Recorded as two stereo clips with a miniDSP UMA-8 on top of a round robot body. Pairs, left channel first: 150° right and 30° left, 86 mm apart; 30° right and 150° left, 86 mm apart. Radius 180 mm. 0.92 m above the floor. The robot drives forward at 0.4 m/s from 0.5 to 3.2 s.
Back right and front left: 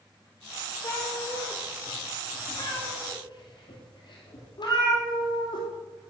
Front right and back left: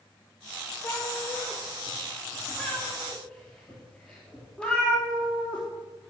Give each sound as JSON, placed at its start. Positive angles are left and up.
{"t": 0.8, "sound": "a cat meowing", "azimuth_deg": -85, "distance_m": 2.5}